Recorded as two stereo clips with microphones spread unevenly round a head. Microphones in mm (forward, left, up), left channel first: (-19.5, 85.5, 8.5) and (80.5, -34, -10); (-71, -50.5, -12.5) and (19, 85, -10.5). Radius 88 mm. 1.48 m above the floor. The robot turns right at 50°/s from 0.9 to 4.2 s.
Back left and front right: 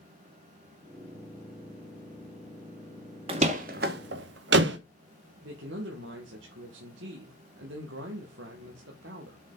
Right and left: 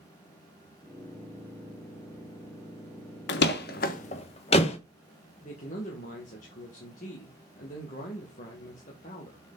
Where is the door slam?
115° right, 0.9 m; by 4.8 s 70° right, 0.9 m.